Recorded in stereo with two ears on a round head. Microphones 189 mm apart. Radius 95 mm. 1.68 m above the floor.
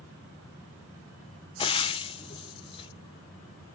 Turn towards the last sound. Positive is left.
turn(degrees=25)  # may be behind; listen again after turning